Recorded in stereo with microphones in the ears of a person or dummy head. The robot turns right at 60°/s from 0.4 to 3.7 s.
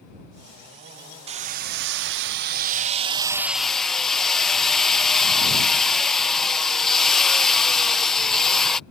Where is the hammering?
140° right; by 8.8 s 5° left.